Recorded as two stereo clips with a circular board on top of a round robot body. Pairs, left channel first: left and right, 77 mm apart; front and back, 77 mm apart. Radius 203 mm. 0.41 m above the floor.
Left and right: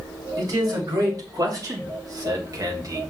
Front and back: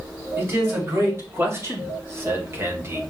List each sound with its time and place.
0.4 s a man speaking: 125° right, 4 m